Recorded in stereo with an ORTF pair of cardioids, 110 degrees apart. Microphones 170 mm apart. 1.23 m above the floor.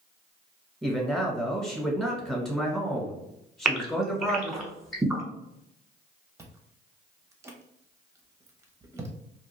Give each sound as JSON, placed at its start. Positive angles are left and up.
{"t": 0.8, "sound": "a man speaking", "azimuth_deg": 5, "distance_m": 1.1}
{"t": 3.6, "sound": "a gasp", "azimuth_deg": 0, "distance_m": 0.9}
{"t": 6.4, "sound": "chewing", "azimuth_deg": -15, "distance_m": 0.6}